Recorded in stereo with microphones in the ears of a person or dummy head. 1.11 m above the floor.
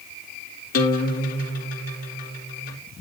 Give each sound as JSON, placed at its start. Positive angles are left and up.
{"t": 0.7, "sound": "a guitar", "side_deg": 55, "distance_m": 3.5}